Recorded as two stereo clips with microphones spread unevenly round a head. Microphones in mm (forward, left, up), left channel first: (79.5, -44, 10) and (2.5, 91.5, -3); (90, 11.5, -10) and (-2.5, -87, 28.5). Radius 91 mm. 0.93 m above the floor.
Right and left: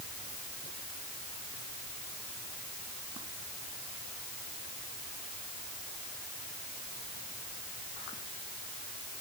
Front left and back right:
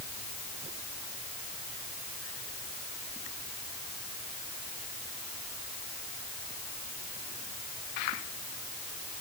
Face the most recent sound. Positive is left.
No sound to turn to.